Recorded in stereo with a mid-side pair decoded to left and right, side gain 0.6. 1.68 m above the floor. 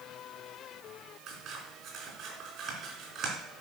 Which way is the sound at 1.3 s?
50° right.